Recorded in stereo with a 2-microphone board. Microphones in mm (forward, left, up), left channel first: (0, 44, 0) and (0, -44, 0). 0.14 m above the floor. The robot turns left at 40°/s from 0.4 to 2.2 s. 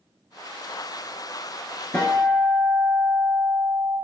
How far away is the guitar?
About 0.6 m.